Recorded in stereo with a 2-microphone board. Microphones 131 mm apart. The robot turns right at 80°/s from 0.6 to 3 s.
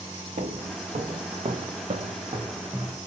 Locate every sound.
0.4 s footsteps: 80° right, 0.9 m; by 3.0 s 10° right (ahead or behind), 1.0 m